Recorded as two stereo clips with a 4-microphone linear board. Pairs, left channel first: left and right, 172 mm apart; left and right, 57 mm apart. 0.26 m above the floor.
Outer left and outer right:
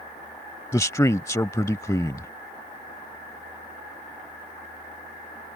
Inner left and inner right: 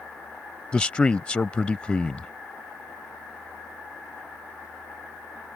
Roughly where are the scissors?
No scissors in this recording.